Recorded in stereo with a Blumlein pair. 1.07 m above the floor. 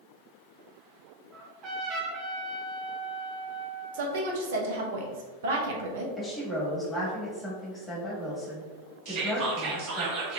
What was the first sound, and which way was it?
A trumpet, 35° right.